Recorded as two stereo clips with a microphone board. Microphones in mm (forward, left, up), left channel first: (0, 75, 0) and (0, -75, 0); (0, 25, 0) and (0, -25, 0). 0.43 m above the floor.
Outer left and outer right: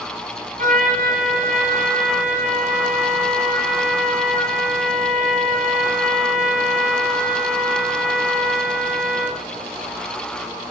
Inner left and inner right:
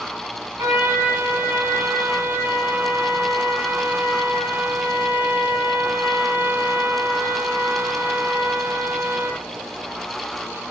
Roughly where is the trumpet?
Right.